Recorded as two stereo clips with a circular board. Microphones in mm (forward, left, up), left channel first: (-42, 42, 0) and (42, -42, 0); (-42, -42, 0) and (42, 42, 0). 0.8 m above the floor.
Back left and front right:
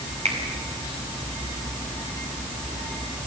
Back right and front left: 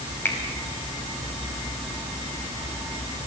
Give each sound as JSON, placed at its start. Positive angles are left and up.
{"t": 0.2, "sound": "a finger snap", "azimuth_deg": -65, "distance_m": 5.0}